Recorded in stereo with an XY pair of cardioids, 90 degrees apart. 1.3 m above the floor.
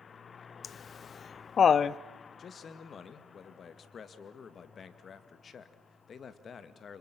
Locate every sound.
0.6 s laughter: 55° left, 0.7 m
2.4 s a man speaking: 55° left, 2 m